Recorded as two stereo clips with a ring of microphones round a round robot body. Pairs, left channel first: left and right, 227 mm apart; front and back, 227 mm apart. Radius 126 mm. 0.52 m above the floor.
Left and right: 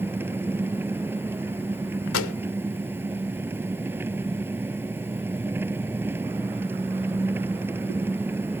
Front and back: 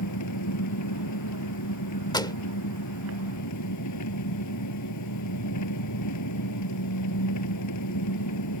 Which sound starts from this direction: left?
A pop, at 2.1 s.